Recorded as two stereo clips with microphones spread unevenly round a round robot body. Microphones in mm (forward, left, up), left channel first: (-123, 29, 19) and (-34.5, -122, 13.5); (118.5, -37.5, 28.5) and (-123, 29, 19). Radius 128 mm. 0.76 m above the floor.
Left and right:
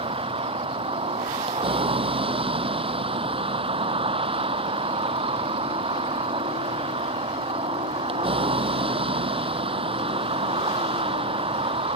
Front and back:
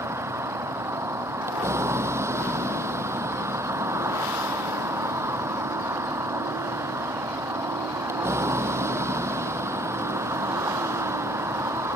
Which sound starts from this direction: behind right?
A vehicle, at 0.0 s.